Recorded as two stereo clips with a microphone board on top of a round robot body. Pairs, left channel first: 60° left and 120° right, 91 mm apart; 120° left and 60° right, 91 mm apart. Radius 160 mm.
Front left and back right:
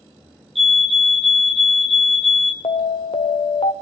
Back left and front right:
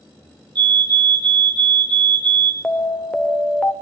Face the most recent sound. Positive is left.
turn(degrees=45)